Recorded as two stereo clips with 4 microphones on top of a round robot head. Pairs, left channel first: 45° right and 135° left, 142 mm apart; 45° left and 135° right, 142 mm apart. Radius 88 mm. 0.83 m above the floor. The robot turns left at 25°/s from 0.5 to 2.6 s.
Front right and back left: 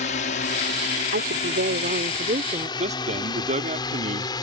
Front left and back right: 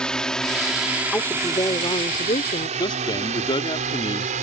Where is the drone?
40° right; by 4.4 s 105° right.